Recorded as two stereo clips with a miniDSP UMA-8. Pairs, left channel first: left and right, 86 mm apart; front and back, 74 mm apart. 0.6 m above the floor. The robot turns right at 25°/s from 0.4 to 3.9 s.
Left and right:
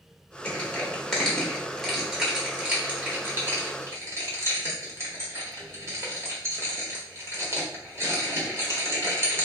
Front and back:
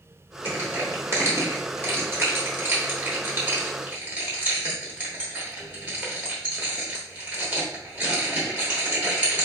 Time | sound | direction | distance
0.5 | crushing | 150° left | 1.1 m